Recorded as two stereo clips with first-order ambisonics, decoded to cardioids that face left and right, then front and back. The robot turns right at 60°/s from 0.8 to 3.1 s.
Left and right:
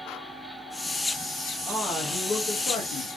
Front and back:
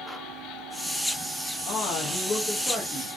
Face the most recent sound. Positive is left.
turn(degrees=90)